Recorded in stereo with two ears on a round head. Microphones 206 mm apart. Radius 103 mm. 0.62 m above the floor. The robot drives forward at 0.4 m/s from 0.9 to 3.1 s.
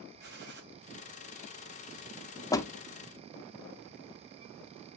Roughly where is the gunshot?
Right.